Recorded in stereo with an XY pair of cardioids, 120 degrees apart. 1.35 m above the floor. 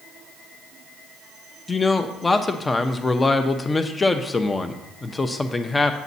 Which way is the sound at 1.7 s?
20° left.